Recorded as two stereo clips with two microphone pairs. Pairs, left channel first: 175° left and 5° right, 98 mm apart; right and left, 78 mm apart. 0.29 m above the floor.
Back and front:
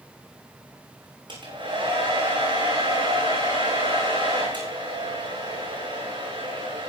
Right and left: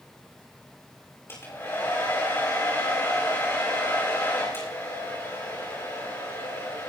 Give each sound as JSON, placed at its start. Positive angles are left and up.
{"t": 1.3, "sound": "a hair dryer", "azimuth_deg": -35, "distance_m": 8.0}